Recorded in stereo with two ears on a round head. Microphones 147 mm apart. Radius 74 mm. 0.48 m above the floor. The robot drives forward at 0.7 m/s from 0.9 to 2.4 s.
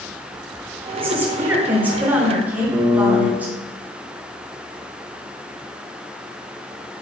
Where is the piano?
20° right (ahead or behind), 3 m.